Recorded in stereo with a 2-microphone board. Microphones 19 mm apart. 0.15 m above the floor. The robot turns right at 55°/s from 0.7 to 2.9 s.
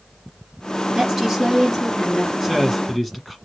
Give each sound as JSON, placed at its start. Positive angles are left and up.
{"t": 0.9, "sound": "a woman speaking", "azimuth_deg": -65, "distance_m": 1.9}
{"t": 2.4, "sound": "a man speaking", "side_deg": -20, "distance_m": 1.3}